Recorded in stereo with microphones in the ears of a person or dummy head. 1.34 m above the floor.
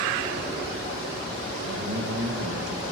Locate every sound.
1.6 s a man speaking: 70° right (ahead or behind), 1.5 m